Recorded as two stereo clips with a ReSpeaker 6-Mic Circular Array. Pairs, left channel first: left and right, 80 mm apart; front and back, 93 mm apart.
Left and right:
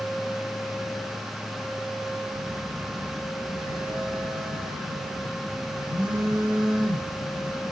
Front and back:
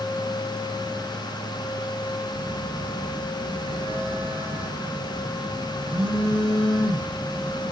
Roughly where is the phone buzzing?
Behind.